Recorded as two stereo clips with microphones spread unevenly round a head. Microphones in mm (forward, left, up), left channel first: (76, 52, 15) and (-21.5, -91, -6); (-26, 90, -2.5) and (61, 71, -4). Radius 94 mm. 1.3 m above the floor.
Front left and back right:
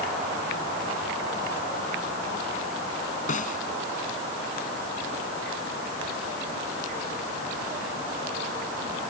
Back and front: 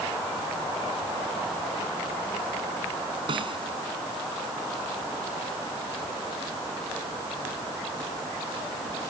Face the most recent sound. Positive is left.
turn(degrees=10)